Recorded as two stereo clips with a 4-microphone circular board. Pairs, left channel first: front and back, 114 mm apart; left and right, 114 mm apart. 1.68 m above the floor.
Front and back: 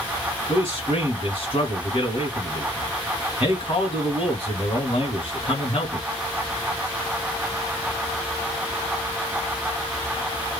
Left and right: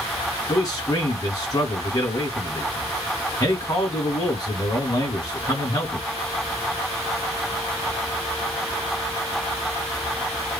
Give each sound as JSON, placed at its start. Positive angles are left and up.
{"t": 0.5, "sound": "a man speaking", "azimuth_deg": 35, "distance_m": 2.0}